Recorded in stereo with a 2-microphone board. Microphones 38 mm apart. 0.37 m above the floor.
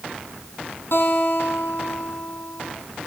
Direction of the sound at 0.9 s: 75° left (ahead or behind).